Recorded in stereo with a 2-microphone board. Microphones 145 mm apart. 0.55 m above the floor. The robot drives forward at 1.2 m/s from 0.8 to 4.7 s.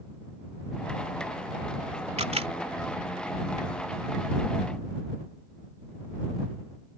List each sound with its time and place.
2.2 s a camera shutter: 50° right (ahead or behind); by 2.5 s 45° right (ahead or behind)